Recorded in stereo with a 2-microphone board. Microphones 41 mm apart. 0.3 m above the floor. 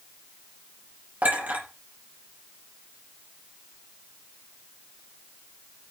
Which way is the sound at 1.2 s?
40° right (ahead or behind).